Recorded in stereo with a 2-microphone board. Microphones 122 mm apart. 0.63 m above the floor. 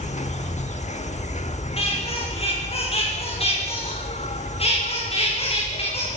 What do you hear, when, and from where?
0.0 s an insect: 70° left (ahead or behind), 1.1 m
1.8 s a squeak: 55° left (ahead or behind), 9 m